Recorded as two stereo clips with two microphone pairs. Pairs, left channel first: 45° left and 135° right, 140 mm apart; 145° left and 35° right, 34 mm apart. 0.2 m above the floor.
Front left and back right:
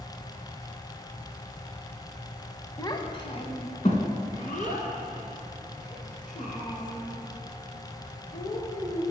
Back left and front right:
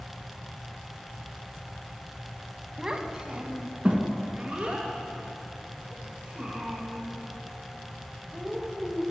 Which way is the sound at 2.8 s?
15° left.